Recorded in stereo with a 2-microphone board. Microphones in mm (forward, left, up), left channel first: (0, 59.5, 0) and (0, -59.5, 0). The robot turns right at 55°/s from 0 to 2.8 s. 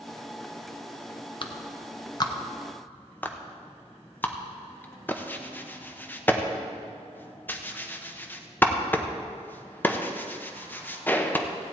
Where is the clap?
45° left (ahead or behind), 0.8 m; by 11.5 s 15° left (ahead or behind), 0.8 m.